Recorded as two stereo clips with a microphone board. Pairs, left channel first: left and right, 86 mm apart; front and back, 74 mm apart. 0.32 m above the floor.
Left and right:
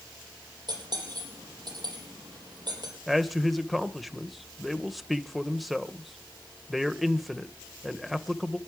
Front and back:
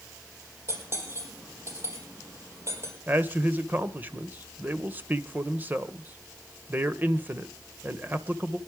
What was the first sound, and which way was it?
Cutlery clinking, 125° right.